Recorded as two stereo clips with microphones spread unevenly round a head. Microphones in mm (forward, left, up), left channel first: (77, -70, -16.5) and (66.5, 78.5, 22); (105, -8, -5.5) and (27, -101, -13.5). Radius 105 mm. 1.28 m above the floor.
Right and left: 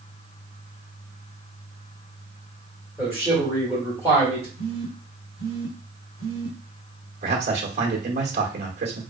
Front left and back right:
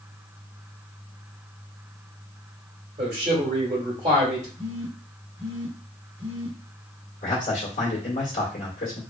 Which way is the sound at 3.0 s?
Straight behind.